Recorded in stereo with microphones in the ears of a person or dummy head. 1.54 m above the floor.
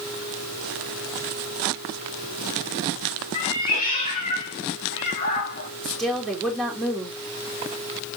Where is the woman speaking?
Centre (ahead or behind), 3 m.